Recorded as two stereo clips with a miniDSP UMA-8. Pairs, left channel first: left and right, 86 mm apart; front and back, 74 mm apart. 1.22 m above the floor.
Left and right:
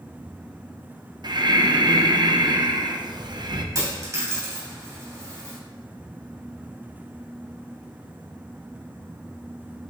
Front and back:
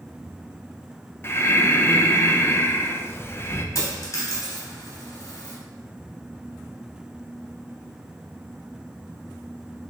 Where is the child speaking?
No child speaking in this recording.